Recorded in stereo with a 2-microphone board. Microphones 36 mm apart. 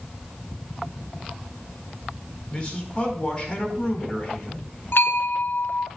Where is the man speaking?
25° left (ahead or behind), 4.5 m.